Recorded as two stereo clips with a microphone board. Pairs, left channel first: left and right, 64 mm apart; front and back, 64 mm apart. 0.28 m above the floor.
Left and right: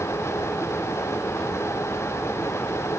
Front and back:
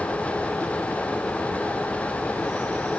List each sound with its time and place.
Only background noise.